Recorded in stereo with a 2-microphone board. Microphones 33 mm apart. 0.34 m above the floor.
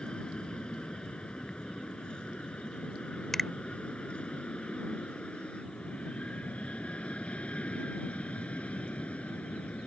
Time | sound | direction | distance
0.0 | an aircraft | 25° left (ahead or behind) | ?
3.3 | a finger snap | 10° left (ahead or behind) | ?